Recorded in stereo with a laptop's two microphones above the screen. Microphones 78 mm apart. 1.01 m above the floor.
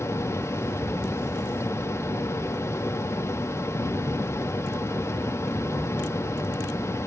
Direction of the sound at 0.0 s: 40° left (ahead or behind).